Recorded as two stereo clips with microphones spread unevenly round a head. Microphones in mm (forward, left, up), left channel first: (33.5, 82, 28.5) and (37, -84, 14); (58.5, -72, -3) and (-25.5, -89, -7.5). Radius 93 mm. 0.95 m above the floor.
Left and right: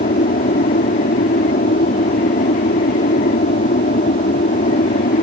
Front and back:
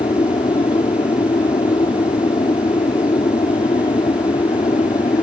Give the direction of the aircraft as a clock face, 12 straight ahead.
10 o'clock.